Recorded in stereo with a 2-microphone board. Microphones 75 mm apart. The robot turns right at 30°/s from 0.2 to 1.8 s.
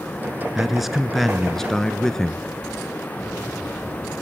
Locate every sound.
0.6 s a man speaking: 5° right (ahead or behind), 1.3 m; by 2.4 s 5° left (ahead or behind), 1.3 m